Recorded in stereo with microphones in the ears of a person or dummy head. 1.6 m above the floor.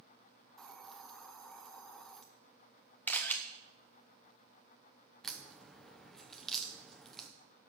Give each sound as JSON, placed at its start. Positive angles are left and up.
{"t": 0.6, "sound": "a hiss", "side_deg": 0, "distance_m": 0.6}
{"t": 3.1, "sound": "a camera shutter", "side_deg": 5, "distance_m": 0.8}
{"t": 5.2, "sound": "a crack", "side_deg": 0, "distance_m": 0.6}